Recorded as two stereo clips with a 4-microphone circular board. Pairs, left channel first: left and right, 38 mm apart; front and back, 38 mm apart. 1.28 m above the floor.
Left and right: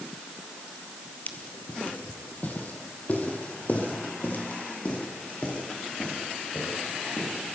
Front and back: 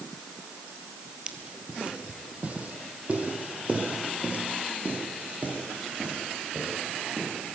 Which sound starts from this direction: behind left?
Footsteps, at 1.3 s.